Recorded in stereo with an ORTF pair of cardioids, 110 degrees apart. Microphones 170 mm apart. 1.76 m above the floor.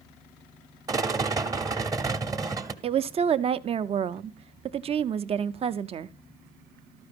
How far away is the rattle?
About 0.9 m.